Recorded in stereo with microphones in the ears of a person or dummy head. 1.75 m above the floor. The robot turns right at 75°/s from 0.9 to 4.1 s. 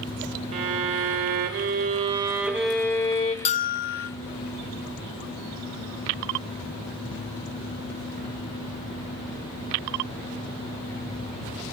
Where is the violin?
135° right, 2 m; by 3.4 s 50° left, 2 m.